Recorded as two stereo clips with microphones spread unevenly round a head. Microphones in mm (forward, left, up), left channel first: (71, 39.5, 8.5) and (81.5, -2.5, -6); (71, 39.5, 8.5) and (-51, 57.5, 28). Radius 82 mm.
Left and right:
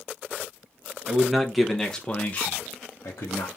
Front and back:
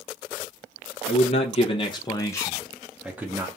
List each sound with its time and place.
1.1 s a man speaking: 5° right, 1.1 m; by 3.5 s 100° left, 0.9 m